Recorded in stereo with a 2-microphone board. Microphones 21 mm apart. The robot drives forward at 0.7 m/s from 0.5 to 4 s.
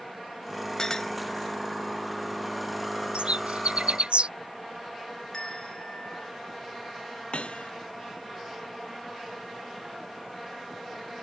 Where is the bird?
85° right; by 4.3 s 80° right.